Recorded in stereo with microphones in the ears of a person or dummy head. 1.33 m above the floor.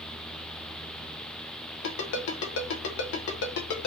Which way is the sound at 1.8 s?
70° left (ahead or behind).